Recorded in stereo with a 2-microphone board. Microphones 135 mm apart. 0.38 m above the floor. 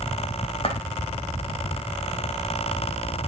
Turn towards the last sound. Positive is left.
turn(degrees=45)  # may be behind; listen again after turning